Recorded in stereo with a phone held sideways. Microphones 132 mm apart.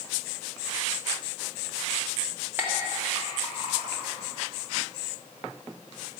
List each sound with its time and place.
2.6 s a clink: 15° right (ahead or behind), 1.5 m